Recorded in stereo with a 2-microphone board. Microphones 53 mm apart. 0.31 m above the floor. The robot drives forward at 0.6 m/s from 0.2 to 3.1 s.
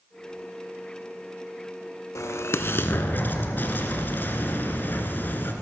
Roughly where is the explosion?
Left.